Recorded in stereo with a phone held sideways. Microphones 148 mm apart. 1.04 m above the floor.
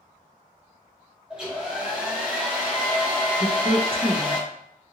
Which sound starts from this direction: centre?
A hair dryer, at 1.3 s.